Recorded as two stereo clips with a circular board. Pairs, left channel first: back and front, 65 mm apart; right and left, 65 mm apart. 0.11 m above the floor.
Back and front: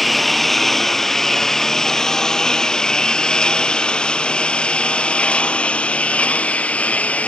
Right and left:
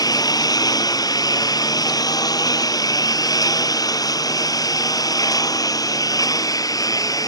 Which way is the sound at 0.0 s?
95° right.